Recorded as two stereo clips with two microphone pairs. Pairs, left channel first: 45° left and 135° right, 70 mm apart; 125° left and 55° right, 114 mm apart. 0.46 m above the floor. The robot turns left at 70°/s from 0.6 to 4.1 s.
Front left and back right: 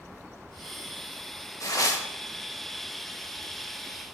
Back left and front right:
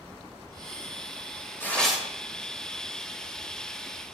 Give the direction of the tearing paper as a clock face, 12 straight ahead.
10 o'clock.